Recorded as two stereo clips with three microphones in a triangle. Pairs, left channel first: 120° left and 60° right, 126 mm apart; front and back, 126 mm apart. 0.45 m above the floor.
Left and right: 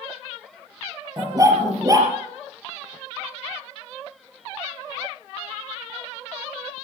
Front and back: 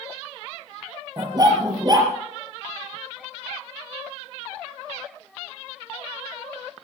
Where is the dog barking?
125° right, 4 m.